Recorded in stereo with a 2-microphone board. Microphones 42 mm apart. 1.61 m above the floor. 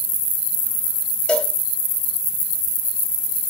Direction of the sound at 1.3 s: 25° left (ahead or behind).